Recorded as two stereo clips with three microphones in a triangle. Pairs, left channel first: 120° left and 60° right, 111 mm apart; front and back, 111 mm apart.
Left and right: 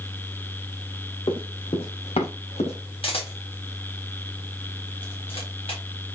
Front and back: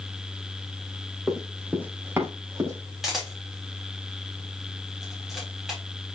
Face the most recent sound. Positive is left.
turn(degrees=95)